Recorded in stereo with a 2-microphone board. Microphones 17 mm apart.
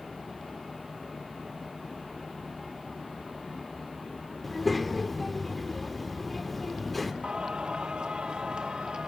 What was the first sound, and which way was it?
A child speaking, 5° left (ahead or behind).